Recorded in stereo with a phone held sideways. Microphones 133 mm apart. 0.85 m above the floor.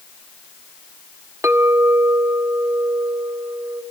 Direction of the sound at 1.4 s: 20° right (ahead or behind).